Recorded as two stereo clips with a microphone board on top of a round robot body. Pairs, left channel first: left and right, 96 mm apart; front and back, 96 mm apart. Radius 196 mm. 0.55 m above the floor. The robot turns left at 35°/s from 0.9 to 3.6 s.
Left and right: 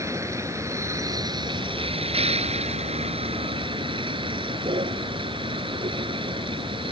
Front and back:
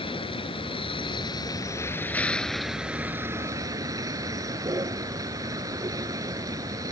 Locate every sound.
0.0 s a vehicle: 30° right; by 6.9 s 125° right